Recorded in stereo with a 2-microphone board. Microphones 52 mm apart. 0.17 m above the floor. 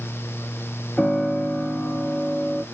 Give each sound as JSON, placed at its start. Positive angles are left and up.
{"t": 1.0, "sound": "a piano", "side_deg": 20, "distance_m": 1.0}